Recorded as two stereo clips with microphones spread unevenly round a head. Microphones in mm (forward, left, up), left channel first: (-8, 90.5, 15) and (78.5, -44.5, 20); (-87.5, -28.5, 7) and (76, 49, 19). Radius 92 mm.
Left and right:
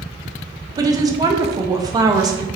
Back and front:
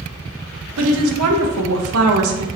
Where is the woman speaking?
10° left, 0.7 m.